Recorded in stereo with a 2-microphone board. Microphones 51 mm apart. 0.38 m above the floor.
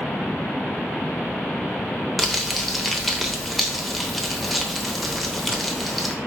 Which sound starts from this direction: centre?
Crumpling, at 2.2 s.